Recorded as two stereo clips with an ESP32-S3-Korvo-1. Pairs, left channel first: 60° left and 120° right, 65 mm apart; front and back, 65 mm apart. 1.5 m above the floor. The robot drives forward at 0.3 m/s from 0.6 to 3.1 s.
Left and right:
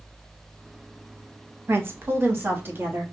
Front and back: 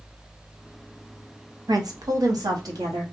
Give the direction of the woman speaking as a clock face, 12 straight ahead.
6 o'clock.